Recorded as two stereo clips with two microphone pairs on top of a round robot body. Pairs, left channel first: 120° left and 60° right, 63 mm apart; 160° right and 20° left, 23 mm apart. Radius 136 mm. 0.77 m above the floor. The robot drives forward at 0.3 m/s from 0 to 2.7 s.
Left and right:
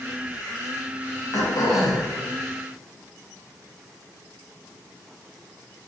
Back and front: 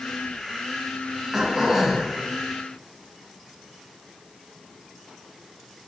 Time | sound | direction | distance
1.3 | throat clearing | 95° left | 1.0 m